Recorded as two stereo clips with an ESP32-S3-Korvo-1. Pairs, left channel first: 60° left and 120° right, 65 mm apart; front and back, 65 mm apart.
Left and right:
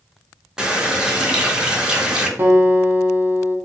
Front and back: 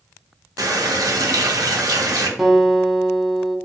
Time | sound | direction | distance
0.6 | a running tap | 160° left | 0.6 m
2.4 | a guitar | 90° right | 0.5 m